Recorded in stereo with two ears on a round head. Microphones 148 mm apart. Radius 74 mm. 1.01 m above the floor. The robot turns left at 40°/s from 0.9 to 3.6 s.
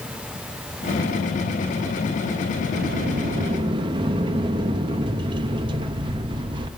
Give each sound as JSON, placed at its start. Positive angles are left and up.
{"t": 2.7, "sound": "a sliding door", "azimuth_deg": -115, "distance_m": 0.7}